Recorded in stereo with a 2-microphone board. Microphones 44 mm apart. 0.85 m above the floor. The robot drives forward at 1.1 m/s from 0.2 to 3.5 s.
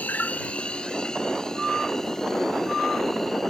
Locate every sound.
0.0 s an insect: 40° left (ahead or behind); by 3.5 s 10° left (ahead or behind)